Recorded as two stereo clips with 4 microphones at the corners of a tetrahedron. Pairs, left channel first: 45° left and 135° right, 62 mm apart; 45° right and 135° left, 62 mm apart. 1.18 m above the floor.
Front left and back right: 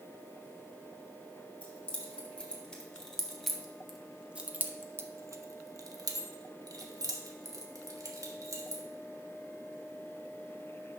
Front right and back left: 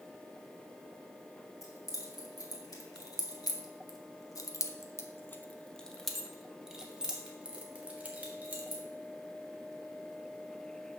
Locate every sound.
1.6 s keys jangling: 25° right, 1.9 m; by 8.8 s 165° right, 2.0 m